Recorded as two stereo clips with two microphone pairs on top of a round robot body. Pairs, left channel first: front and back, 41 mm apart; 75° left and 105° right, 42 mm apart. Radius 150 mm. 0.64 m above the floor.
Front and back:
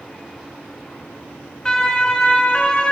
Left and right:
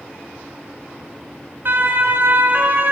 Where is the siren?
75° right, 3 m; by 2.9 s 65° right, 4 m.